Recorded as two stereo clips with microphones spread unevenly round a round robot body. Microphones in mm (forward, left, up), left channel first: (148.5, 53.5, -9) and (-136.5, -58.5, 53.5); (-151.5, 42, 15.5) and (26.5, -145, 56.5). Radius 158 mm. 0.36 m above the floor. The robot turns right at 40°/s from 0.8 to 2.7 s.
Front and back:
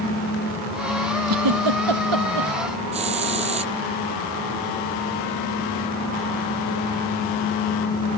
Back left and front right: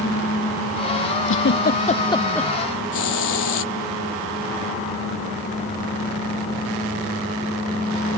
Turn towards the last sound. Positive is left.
turn(degrees=130)